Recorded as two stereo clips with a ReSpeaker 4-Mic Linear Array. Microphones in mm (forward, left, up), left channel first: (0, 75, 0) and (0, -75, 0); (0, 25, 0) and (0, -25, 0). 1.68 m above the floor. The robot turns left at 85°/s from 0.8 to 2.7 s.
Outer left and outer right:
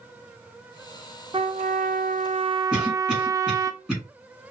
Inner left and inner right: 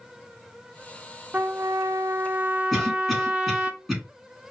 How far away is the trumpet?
About 0.5 m.